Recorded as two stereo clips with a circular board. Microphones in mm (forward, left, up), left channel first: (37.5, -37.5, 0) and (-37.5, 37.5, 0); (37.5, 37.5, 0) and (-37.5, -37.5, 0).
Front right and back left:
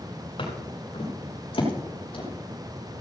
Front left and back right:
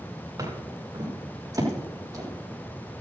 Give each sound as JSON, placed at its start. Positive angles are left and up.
{"t": 0.4, "sound": "footsteps", "azimuth_deg": -80, "distance_m": 8.0}